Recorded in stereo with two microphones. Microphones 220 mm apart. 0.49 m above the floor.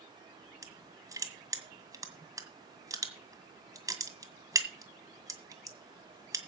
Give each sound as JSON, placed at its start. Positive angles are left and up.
{"t": 0.6, "sound": "crushing", "side_deg": -15, "distance_m": 1.9}